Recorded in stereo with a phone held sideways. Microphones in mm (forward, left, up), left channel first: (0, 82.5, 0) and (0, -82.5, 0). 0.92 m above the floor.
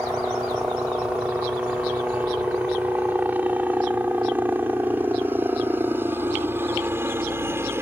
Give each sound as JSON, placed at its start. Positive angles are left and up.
{"t": 0.0, "sound": "a helicopter", "side_deg": -5}